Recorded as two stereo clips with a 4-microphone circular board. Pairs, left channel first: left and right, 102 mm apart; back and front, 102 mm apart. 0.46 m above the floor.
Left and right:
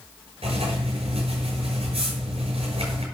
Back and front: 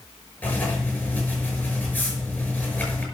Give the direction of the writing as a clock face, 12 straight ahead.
3 o'clock.